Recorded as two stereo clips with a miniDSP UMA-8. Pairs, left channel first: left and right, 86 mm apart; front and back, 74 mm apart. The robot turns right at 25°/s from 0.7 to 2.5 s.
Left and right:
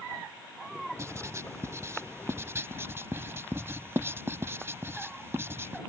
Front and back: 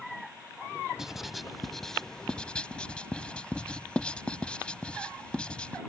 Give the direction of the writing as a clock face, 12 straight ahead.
3 o'clock.